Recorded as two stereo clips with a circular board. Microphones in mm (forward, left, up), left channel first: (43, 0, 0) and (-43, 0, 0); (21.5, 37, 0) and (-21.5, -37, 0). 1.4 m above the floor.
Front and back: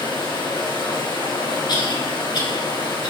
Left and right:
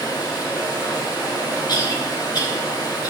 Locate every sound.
0.0 s running water: 20° left, 5 m
1.7 s a cough: 25° left, 4 m